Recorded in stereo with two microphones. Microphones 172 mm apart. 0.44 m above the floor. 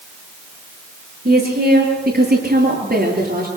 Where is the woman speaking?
70° right (ahead or behind), 8.5 m; by 3.5 s 65° right (ahead or behind), 9.5 m.